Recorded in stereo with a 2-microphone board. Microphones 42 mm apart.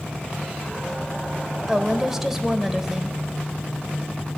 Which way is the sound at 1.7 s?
10° right (ahead or behind).